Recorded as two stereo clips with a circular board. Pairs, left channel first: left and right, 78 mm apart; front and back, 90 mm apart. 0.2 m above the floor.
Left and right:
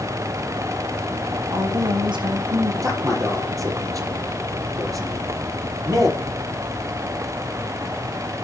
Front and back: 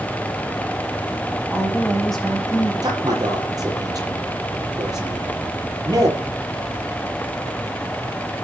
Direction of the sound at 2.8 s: 135° right.